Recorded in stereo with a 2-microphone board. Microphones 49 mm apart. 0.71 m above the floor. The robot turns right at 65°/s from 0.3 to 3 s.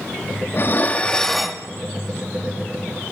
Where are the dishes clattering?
125° left, 0.7 m; by 1.6 s 165° right, 0.7 m.